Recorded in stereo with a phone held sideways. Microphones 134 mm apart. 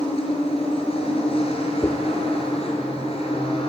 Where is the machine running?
45° left (ahead or behind), 5.5 m.